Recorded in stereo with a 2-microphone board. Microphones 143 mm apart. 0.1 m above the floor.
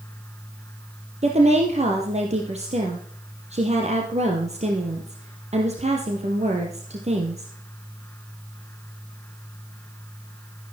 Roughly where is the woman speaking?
Right.